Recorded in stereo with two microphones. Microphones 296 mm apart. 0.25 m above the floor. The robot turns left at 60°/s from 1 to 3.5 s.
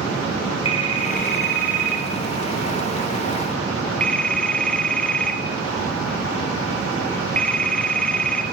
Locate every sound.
0.7 s a phone ringing: 20° left (ahead or behind), 1.4 m; by 8.4 s 5° left (ahead or behind), 1.4 m